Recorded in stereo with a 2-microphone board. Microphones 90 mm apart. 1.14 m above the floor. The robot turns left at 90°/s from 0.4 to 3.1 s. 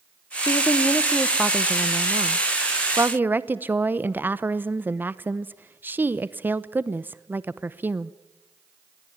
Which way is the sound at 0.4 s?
85° left.